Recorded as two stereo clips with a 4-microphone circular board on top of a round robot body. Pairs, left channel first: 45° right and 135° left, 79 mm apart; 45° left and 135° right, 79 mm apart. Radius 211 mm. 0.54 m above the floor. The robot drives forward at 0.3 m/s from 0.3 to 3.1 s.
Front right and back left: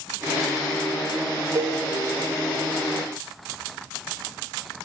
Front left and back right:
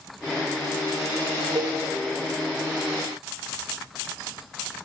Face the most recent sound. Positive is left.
turn(degrees=-175)